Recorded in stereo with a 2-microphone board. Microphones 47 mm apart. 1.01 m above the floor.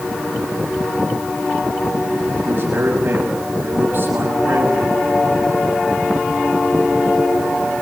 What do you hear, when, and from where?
2.5 s a man speaking: 50° right (ahead or behind), 6.5 m